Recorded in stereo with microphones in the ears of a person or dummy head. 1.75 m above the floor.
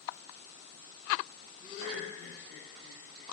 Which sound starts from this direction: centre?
Laughter, at 1.6 s.